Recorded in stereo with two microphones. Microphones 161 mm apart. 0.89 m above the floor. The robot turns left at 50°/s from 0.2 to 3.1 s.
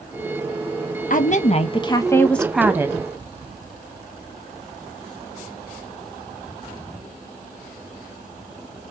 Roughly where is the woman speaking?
Left.